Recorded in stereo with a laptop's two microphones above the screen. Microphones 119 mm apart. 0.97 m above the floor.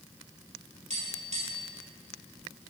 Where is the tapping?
65° right (ahead or behind), 2 m.